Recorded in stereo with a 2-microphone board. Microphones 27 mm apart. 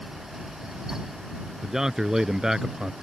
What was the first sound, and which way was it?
A man speaking, 20° right (ahead or behind).